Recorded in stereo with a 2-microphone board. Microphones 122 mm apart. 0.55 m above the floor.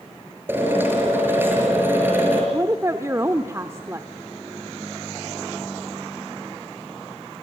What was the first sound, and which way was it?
A drill, 15° right (ahead or behind).